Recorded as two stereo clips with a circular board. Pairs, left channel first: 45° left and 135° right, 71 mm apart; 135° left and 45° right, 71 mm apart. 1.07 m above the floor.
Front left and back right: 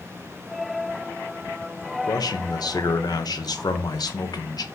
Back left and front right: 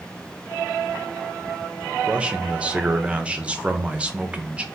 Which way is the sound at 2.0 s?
30° left.